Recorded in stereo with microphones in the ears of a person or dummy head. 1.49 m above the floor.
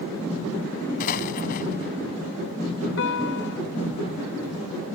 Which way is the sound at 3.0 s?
70° left (ahead or behind).